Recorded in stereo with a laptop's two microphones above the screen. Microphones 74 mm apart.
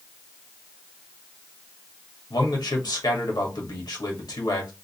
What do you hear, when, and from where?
2.3 s a man speaking: 75° left (ahead or behind), 1.6 m